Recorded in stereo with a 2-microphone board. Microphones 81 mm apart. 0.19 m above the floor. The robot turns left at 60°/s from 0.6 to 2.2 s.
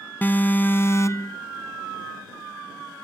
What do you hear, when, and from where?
0.2 s an alarm: 145° left; by 1.4 s 95° left